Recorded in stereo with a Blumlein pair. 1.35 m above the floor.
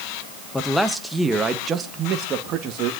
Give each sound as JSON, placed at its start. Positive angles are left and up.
{"t": 0.5, "sound": "a man speaking", "azimuth_deg": 10, "distance_m": 1.5}